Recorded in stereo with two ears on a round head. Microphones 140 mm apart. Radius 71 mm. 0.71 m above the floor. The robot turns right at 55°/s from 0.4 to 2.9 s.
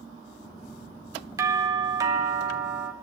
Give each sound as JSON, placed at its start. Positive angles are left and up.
{"t": 1.4, "sound": "a doorbell", "side_deg": -20, "distance_m": 1.6}